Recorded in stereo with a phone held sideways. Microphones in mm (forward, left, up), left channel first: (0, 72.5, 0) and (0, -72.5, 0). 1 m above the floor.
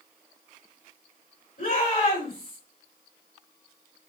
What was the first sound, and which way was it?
A shout, 80° left.